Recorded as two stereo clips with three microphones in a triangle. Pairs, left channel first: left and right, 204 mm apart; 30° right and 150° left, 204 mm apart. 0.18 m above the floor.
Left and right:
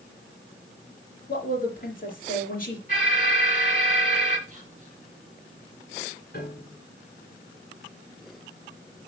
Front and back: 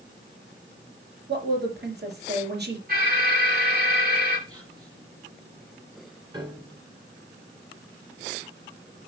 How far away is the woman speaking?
About 3.5 m.